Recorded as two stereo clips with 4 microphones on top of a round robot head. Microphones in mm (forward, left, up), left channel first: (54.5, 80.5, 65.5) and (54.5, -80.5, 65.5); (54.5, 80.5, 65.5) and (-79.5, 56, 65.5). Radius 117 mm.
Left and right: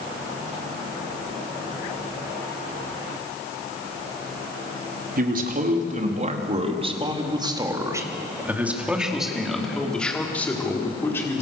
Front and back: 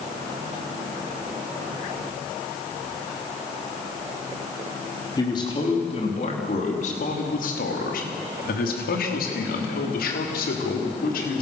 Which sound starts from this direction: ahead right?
A man speaking, at 5.2 s.